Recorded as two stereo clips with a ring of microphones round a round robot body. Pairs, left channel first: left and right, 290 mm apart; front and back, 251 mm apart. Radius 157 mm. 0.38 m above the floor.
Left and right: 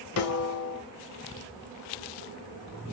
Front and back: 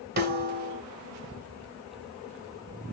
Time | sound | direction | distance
0.2 | a snare drum | 130° left | 1.1 m